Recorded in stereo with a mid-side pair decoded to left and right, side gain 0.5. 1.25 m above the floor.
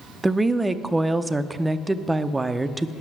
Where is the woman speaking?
15° right, 0.5 m.